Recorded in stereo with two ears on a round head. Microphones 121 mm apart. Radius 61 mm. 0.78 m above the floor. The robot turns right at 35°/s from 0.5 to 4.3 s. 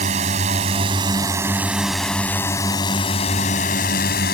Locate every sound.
0.0 s a drone: 50° right; by 4.3 s 80° left